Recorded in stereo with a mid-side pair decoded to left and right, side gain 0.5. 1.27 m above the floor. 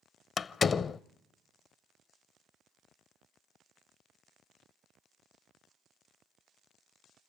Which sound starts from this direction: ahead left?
A door slam, at 0.4 s.